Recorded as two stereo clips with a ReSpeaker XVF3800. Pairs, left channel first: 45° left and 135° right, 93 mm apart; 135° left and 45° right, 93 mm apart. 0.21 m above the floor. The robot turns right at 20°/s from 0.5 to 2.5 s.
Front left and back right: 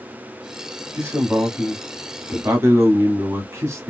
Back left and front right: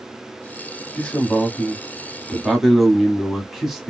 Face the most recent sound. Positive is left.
turn(degrees=-130)